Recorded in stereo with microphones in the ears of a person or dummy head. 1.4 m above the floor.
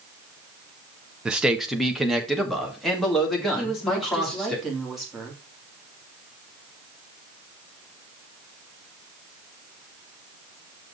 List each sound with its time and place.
1.2 s a man speaking: 5° right (ahead or behind), 0.7 m; by 4.5 s centre (ahead or behind), 3 m
3.5 s a woman speaking: 5° right (ahead or behind), 2.5 m